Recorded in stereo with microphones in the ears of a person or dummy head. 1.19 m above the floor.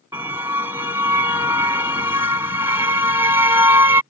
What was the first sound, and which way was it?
A car horn, 10° right (ahead or behind).